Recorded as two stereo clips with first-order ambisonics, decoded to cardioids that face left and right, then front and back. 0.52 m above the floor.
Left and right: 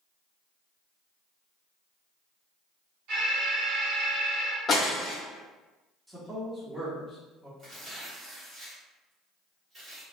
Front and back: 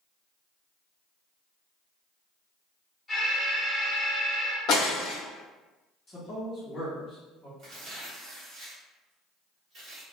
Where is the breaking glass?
25° left, 0.8 m.